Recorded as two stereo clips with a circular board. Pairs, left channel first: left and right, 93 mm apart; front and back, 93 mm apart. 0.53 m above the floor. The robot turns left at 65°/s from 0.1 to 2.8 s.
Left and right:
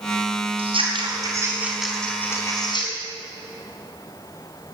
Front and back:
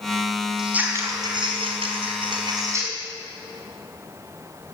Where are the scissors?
95° right, 4.5 m; by 2.9 s 120° left, 4.5 m.